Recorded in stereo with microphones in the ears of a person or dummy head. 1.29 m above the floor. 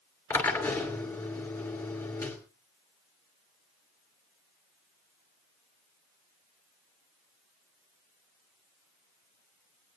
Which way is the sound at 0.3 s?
10° left (ahead or behind).